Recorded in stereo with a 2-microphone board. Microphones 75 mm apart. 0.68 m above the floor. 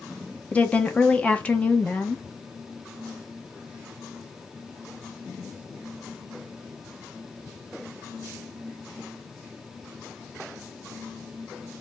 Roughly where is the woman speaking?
Centre.